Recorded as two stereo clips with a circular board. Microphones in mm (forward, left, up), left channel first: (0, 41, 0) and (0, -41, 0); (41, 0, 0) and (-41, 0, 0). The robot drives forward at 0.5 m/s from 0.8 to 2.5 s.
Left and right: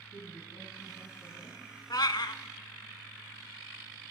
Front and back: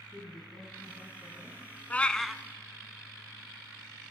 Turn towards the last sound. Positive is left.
turn(degrees=100)